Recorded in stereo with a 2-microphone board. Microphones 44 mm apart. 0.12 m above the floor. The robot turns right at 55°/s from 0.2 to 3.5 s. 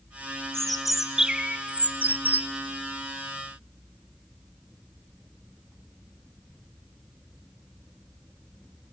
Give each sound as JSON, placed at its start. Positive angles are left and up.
{"t": 0.5, "sound": "a bird", "azimuth_deg": 165, "distance_m": 0.7}